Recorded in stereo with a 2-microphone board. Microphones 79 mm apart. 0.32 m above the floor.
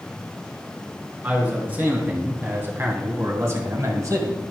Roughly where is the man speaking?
Right.